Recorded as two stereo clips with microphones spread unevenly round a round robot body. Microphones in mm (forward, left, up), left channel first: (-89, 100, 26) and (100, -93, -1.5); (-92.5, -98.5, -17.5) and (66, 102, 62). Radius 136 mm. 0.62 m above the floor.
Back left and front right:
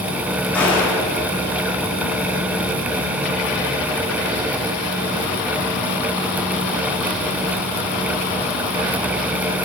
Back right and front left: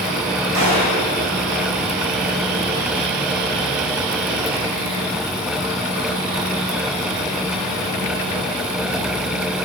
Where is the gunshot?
50° left, 8 m.